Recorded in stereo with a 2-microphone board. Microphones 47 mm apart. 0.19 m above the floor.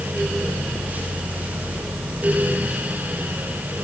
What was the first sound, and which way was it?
Only background noise.